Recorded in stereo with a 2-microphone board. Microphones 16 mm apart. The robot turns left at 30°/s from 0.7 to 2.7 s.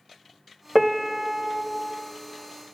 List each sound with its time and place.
0.8 s a piano: 5° right (ahead or behind), 0.6 m; by 1.6 s 20° right (ahead or behind), 0.6 m